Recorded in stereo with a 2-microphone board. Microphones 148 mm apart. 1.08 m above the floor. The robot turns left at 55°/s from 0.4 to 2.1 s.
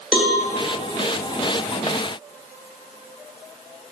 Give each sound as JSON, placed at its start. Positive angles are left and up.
{"t": 0.1, "sound": "a cowbell", "side_deg": -5, "distance_m": 0.6}